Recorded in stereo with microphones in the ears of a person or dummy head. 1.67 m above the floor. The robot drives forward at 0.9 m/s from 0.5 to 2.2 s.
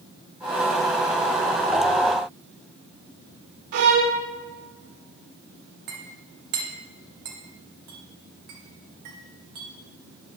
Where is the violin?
60° right (ahead or behind), 0.7 m.